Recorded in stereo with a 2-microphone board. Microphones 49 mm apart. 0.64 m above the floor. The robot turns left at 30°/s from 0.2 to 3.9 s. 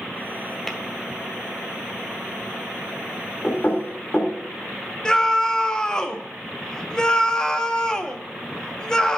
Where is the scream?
15° left (ahead or behind), 0.6 m.